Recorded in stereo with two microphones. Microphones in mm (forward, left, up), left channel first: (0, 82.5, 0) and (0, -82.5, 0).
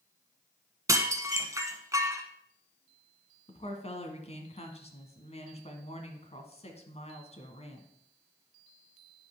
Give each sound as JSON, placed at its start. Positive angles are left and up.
{"t": 0.9, "sound": "dishes clattering", "side_deg": -20, "distance_m": 1.2}
{"t": 3.5, "sound": "a woman speaking", "side_deg": 40, "distance_m": 1.6}